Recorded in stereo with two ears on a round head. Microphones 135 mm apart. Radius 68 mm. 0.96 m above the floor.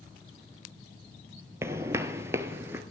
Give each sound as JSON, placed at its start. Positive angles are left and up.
{"t": 1.6, "sound": "footsteps", "side_deg": -15, "distance_m": 1.2}